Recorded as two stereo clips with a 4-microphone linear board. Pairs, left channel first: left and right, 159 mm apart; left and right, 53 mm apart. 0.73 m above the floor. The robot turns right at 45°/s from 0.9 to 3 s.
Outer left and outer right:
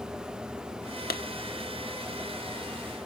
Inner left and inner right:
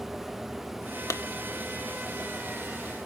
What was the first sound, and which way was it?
A clap, 70° left (ahead or behind).